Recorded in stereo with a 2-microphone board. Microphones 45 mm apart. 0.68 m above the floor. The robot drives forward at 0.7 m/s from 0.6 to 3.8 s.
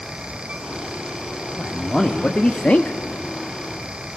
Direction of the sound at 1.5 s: 15° left (ahead or behind).